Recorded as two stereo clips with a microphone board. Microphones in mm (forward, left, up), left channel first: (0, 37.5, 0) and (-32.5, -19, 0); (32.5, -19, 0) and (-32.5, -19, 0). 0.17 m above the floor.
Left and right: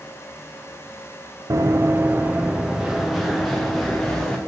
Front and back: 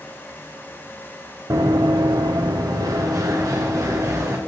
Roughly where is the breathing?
I don't hear breathing.